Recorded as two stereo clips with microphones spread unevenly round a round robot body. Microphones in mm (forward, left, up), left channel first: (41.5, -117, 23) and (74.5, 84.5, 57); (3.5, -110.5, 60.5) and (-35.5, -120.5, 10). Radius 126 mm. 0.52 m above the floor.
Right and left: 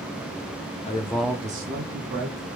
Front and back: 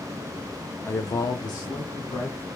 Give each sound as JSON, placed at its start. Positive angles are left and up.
{"t": 0.8, "sound": "a man speaking", "azimuth_deg": -60, "distance_m": 1.1}